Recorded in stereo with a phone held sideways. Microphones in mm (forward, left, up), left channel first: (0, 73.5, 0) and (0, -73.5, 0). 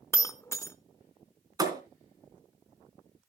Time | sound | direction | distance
0.1 | breaking glass | 20° left (ahead or behind) | 0.6 m
1.6 | a thud | 25° right (ahead or behind) | 2.5 m